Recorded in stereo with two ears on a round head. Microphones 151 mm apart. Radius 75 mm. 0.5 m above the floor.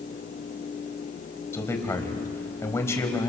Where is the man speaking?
15° left (ahead or behind), 3 m.